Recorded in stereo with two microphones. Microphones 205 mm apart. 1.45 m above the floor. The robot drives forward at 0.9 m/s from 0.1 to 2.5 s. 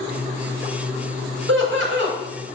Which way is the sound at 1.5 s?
75° right (ahead or behind).